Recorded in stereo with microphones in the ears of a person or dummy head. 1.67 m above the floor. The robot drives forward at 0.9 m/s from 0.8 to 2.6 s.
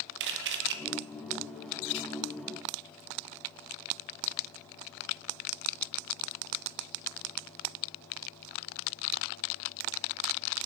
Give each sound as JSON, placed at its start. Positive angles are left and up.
{"t": 0.2, "sound": "a camera shutter", "side_deg": -60, "distance_m": 1.3}